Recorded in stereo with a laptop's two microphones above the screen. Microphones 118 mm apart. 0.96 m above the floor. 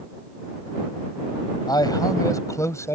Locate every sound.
1.7 s a man speaking: 35° left (ahead or behind); by 3.0 s 25° left (ahead or behind)